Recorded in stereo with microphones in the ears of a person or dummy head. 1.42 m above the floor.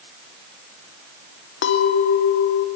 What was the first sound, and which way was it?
A clink, 60° left (ahead or behind).